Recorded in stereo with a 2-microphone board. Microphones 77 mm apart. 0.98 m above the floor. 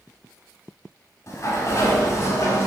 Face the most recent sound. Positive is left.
turn(degrees=40)  # may be behind; listen again after turning